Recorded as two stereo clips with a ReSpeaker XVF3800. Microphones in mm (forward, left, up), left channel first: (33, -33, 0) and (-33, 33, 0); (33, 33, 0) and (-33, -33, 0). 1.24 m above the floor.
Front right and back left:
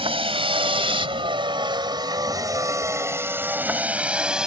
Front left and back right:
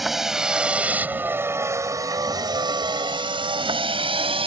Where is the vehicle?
135° left; by 4.5 s 145° right.